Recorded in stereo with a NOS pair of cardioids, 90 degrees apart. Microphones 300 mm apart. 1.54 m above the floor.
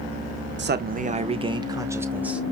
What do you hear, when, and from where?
0.6 s a man speaking: 35° right, 1.1 m; by 2.4 s 5° right, 1.8 m